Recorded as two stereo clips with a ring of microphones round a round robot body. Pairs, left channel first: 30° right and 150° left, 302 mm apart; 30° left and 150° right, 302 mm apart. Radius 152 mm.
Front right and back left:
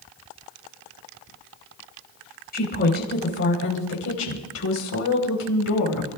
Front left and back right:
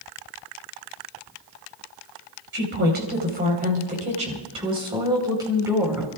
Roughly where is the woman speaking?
Right.